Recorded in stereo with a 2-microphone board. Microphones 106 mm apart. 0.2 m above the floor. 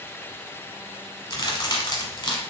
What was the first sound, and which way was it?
A crack, 40° left (ahead or behind).